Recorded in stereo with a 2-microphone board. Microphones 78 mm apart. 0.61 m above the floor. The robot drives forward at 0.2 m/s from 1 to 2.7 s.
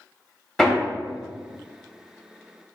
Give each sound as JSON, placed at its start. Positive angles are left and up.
{"t": 0.6, "sound": "hammering", "side_deg": 5, "distance_m": 0.7}